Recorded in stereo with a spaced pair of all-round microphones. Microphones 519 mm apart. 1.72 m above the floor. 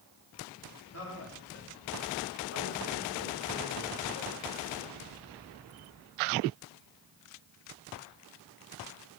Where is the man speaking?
25° left (ahead or behind), 3.5 m; by 4.1 s 30° left (ahead or behind), 1.1 m.